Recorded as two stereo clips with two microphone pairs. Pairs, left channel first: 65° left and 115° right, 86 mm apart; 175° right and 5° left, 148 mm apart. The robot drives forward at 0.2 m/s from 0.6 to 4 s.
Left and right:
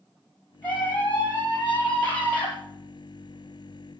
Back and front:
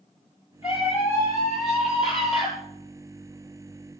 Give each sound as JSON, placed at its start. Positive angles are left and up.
{"t": 0.6, "sound": "a scream", "azimuth_deg": 135, "distance_m": 8.0}